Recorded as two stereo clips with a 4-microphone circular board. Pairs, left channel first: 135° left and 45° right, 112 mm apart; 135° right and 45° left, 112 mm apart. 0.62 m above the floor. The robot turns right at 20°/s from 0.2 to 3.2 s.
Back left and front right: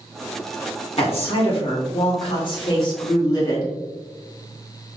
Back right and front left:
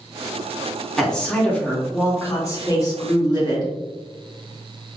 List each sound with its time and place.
1.0 s a woman speaking: 140° left, 1.8 m; by 3.7 s 175° right, 1.8 m